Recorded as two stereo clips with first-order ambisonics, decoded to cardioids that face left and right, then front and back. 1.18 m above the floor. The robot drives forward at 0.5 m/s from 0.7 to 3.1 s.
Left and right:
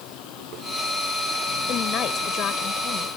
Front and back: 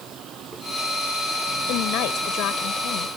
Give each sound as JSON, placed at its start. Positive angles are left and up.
{"t": 0.0, "sound": "a vehicle", "azimuth_deg": 125}
{"t": 1.7, "sound": "a woman speaking", "azimuth_deg": 35}